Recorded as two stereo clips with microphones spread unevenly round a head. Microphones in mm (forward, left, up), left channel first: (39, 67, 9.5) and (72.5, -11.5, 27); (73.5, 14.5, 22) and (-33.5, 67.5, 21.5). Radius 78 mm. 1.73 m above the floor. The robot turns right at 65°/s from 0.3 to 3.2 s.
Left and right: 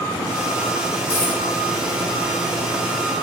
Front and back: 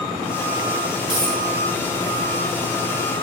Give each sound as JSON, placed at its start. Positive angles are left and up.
{"t": 1.1, "sound": "a dropped coin", "azimuth_deg": 120, "distance_m": 4.0}